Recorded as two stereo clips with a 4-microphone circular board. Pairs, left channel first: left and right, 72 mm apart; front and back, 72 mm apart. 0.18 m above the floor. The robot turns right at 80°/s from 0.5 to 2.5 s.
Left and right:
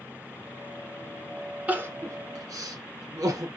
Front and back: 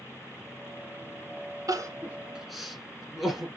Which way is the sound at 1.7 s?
155° right.